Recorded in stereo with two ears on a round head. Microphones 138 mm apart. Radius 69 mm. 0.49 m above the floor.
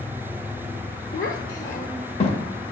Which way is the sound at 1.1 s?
55° left (ahead or behind).